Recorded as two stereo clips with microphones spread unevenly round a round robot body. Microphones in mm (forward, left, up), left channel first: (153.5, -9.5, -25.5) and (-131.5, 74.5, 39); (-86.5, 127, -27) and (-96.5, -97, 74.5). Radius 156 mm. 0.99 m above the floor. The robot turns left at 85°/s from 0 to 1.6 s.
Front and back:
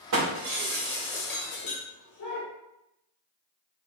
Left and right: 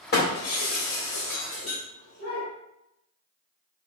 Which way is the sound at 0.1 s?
140° left.